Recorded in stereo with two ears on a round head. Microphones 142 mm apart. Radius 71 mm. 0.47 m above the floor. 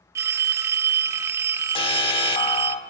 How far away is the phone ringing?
About 0.6 m.